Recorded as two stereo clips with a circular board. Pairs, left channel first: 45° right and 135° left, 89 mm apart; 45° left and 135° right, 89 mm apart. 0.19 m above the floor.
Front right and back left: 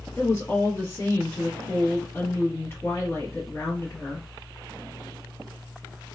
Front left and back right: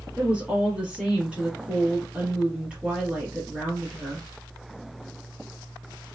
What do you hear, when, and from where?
0.2 s a woman speaking: 70° right, 1.1 m